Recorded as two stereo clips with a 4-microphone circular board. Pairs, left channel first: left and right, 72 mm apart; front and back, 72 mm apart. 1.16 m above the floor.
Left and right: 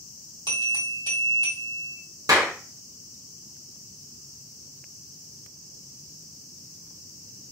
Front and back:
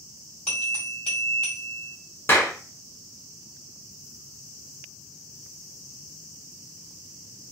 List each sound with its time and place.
0.5 s a bell: 70° right, 1.9 m
2.3 s a clap: 55° right, 0.8 m